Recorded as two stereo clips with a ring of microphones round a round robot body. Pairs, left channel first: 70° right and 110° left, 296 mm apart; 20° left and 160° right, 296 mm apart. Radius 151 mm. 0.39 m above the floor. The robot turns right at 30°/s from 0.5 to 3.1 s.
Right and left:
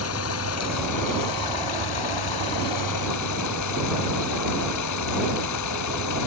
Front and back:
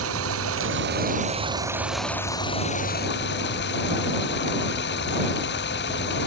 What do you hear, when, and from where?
0.0 s running water: 110° right; by 6.3 s 35° right